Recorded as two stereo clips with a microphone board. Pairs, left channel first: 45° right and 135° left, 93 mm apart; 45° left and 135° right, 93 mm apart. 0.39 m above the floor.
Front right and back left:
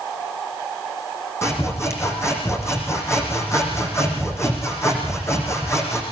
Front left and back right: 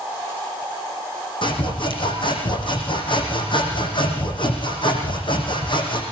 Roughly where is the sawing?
Ahead.